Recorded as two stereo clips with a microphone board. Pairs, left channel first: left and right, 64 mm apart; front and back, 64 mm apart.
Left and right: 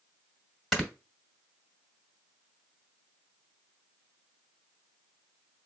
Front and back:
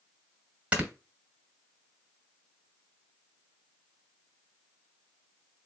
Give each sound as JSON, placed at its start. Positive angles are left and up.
{"t": 0.7, "sound": "snoring", "azimuth_deg": 175, "distance_m": 1.1}